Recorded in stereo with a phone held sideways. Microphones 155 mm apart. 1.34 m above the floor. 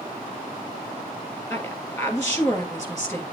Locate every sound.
1.5 s a woman speaking: 20° left (ahead or behind), 3 m